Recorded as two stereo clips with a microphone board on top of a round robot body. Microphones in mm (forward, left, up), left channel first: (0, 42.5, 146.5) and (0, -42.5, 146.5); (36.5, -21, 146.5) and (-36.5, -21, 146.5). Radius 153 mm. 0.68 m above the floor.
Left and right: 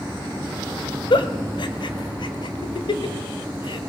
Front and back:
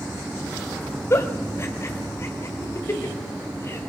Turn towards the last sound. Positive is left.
turn(degrees=60)